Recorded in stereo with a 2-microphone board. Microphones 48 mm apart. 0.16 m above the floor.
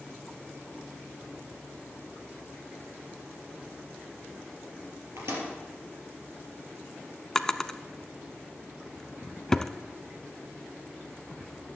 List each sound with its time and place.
5.2 s a microwave: 65° right (ahead or behind), 3.5 m
7.3 s a drawer: 10° left (ahead or behind), 0.5 m